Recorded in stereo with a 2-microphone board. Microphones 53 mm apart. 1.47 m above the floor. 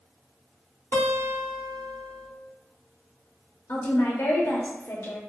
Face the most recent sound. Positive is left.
turn(degrees=60)  # may be behind; listen again after turning